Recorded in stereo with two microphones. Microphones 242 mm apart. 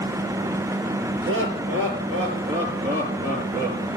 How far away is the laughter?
About 5 m.